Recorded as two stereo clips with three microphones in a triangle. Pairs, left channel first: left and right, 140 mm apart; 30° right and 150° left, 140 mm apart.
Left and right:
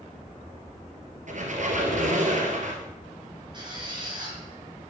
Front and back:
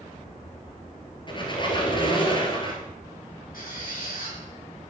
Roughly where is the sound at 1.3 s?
Right.